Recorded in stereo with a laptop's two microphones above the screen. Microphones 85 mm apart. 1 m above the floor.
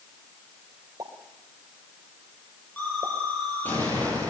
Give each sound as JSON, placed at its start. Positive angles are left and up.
{"t": 1.0, "sound": "a pop", "side_deg": -55, "distance_m": 3.0}
{"t": 2.8, "sound": "an explosion", "side_deg": 20, "distance_m": 10.0}